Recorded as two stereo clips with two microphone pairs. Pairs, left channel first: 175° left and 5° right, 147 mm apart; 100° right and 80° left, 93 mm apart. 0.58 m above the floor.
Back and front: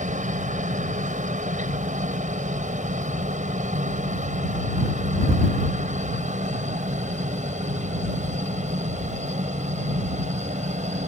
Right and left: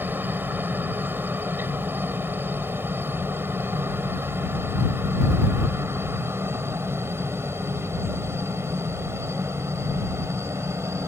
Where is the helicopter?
15° left; by 11.1 s 25° left.